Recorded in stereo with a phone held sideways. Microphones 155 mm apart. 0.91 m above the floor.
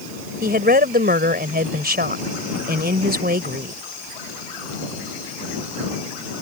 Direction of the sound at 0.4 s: 85° right.